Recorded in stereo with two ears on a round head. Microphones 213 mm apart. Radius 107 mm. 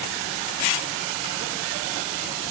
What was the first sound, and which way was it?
Only background noise.